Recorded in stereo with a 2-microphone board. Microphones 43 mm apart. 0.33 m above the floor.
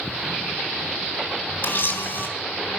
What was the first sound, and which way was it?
A camera shutter, 60° left (ahead or behind).